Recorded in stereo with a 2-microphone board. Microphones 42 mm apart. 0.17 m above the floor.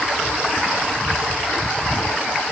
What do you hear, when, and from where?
Only background noise.